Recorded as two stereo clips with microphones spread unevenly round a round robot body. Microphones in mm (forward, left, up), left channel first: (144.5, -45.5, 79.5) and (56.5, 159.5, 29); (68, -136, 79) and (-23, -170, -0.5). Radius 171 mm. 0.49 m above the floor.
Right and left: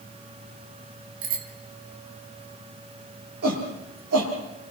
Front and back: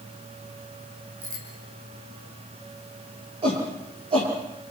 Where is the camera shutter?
I don't hear a camera shutter.